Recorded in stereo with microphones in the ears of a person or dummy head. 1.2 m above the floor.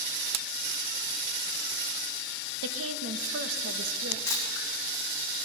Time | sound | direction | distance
2.6 | a woman speaking | 85° right | 0.9 m
4.3 | a camera shutter | 15° left (ahead or behind) | 2 m